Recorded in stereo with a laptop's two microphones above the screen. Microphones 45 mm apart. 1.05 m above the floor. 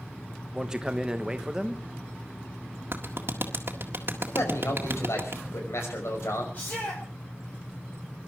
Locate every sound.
0.5 s a man speaking: 15° right (ahead or behind), 1.2 m
2.9 s a clap: 55° right (ahead or behind), 1.7 m
4.3 s a man speaking: 80° left, 5.5 m
6.5 s a shout: 45° left (ahead or behind), 4.5 m